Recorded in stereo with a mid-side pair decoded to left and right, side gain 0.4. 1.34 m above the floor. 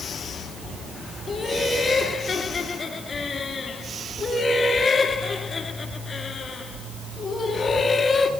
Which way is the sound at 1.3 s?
50° left.